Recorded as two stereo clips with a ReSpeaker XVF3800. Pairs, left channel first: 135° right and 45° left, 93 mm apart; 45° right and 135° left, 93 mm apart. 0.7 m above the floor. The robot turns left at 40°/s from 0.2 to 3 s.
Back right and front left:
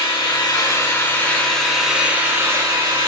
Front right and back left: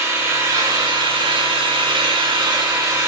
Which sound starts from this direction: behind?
An engine running, at 0.0 s.